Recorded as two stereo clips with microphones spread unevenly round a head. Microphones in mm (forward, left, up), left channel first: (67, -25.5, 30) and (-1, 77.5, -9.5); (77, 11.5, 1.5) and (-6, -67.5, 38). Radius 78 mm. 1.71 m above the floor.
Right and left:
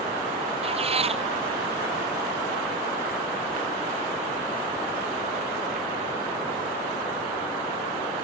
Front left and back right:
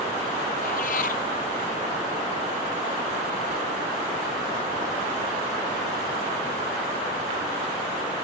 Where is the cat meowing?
80° left.